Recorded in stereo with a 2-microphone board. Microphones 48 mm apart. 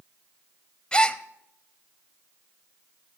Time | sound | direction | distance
0.9 | a gasp | 20° left (ahead or behind) | 0.6 m